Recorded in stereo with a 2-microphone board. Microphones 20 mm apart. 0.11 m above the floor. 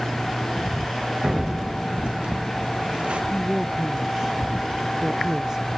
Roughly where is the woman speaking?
Right.